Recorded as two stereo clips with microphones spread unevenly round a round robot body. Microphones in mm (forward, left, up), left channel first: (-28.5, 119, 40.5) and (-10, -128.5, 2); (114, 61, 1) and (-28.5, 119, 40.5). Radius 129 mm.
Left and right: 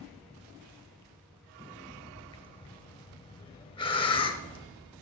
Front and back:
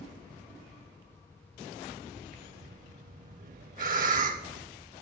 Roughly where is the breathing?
Behind.